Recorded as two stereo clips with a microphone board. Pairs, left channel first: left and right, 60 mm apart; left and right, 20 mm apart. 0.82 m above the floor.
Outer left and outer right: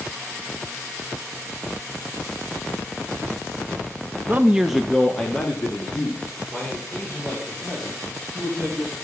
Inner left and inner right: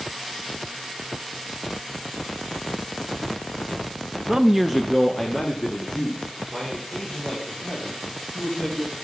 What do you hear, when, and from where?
4.3 s a man speaking: 30° right (ahead or behind), 0.5 m; by 8.9 s 25° left (ahead or behind), 5 m